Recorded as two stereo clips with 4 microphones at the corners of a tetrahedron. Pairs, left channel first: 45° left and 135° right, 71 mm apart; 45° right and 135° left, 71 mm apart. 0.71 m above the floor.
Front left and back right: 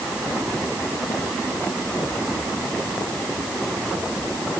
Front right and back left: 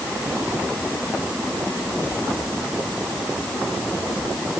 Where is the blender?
No blender in this recording.